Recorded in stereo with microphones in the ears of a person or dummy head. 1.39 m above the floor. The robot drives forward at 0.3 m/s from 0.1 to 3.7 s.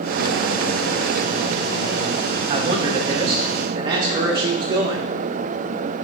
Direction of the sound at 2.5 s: 30° right (ahead or behind).